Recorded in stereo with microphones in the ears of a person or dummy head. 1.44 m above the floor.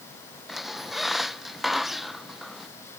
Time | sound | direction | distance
0.5 | a squeak | 5° left (ahead or behind) | ?